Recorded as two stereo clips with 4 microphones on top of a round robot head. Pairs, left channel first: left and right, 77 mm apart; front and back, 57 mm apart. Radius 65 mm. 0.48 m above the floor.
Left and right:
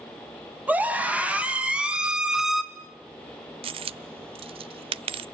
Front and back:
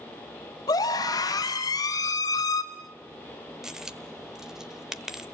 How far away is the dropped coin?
About 0.5 m.